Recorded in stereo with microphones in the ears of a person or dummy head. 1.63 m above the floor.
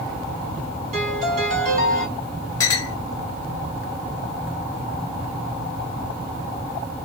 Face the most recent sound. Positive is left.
turn(degrees=15)  # may be behind; listen again after turning